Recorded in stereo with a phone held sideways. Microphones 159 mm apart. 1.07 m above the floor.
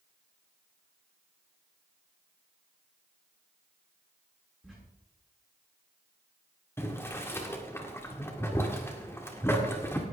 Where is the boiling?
15° left (ahead or behind), 1.9 m.